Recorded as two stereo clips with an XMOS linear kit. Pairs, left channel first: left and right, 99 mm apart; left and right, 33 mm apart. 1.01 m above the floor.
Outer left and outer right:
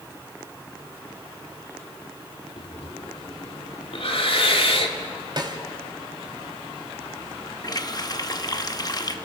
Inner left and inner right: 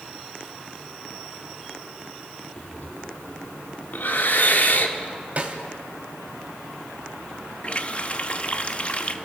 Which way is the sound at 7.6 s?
40° left (ahead or behind).